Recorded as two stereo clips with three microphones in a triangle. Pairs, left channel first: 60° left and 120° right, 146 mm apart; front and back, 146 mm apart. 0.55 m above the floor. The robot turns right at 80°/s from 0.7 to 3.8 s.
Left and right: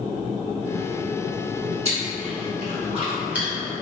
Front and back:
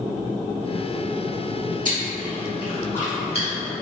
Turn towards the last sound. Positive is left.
turn(degrees=-5)